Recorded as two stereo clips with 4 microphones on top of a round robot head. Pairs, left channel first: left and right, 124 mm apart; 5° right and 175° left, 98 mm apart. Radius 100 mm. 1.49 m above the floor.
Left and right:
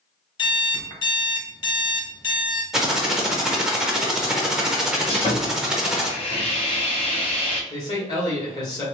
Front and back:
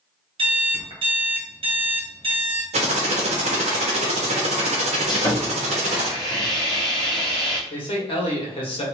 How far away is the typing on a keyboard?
About 0.8 m.